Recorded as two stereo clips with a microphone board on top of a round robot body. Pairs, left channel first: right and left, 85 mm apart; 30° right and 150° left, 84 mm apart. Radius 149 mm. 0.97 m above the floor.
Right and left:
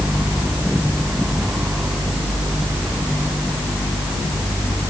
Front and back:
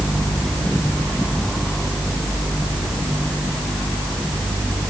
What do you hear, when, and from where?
Only background noise.